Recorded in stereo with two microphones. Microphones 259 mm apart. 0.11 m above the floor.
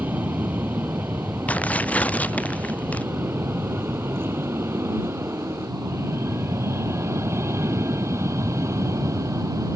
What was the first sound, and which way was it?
An aircraft, 5° right (ahead or behind).